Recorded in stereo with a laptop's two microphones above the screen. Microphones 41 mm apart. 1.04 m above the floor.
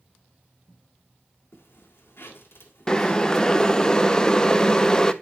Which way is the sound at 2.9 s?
15° left (ahead or behind).